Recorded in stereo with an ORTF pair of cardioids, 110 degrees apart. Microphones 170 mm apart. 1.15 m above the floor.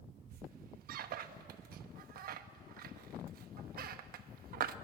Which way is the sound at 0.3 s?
60° right.